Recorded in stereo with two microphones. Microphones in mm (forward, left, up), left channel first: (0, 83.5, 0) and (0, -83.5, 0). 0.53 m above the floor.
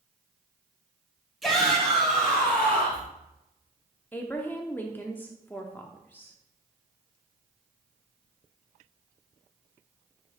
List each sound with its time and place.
1.4 s a shout: centre (ahead or behind), 3 m; by 3.1 s 10° left (ahead or behind), 4 m
4.1 s a woman speaking: 10° left (ahead or behind), 0.7 m